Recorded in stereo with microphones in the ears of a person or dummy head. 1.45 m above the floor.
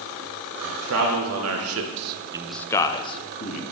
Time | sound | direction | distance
0.6 | a man speaking | 65° right (ahead or behind) | 1.7 m